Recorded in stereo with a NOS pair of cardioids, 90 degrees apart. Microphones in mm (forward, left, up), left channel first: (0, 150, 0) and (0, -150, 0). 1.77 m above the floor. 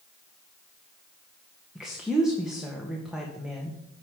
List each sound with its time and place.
1.8 s a woman speaking: straight ahead, 1.9 m